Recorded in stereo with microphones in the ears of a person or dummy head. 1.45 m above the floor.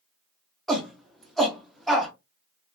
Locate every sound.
0.7 s a shout: 5° right (ahead or behind), 0.5 m